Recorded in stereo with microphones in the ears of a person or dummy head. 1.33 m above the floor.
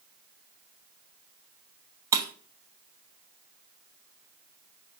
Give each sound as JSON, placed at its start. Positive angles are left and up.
{"t": 2.1, "sound": "breaking glass", "side_deg": -20, "distance_m": 0.8}